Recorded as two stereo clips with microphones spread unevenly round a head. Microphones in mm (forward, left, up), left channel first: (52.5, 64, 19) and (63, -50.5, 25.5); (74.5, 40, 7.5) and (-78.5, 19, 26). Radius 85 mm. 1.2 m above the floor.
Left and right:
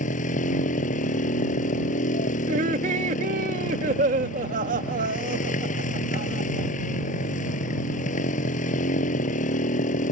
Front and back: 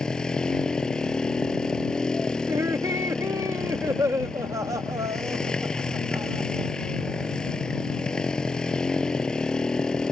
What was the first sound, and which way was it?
A motorcycle, 95° left.